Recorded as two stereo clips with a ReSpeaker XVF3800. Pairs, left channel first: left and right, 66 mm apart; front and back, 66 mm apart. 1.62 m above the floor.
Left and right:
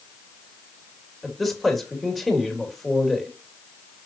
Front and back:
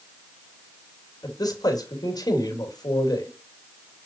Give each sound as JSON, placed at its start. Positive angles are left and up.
{"t": 1.2, "sound": "a man speaking", "azimuth_deg": 0, "distance_m": 3.0}